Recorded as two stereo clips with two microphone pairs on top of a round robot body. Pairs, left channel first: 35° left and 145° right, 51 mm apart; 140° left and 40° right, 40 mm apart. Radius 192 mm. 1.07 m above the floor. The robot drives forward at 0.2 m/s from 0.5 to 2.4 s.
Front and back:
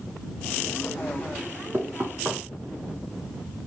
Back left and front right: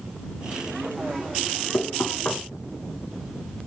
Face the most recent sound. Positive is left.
turn(degrees=165)